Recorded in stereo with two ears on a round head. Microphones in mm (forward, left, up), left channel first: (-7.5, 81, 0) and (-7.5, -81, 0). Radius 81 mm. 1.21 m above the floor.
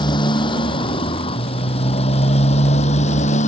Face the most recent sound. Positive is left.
turn(degrees=40)  # may be behind; listen again after turning